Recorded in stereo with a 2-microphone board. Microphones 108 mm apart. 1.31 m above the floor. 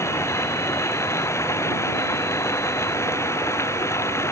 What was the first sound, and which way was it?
Running water, 25° left (ahead or behind).